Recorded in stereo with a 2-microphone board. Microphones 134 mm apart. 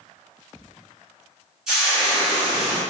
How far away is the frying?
About 1.5 m.